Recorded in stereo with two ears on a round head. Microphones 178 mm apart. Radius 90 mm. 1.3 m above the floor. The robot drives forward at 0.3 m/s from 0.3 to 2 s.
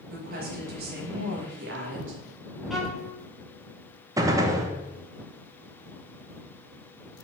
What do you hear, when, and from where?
0.1 s a woman speaking: 45° right (ahead or behind), 1.7 m; by 2.2 s 60° right (ahead or behind), 1.4 m
2.7 s a violin: centre (ahead or behind), 1.1 m
4.2 s a gunshot: 15° right (ahead or behind), 0.6 m